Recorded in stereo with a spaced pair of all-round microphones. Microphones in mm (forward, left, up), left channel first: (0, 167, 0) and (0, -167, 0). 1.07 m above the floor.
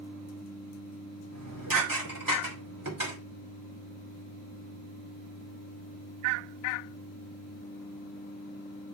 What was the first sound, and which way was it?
Dishes clattering, 80° right.